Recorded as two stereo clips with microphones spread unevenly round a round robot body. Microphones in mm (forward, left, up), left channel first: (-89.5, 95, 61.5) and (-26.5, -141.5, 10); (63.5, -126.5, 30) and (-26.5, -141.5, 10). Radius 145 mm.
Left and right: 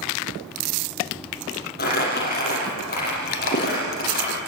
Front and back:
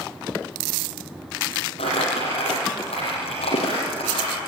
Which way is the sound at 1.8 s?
50° left.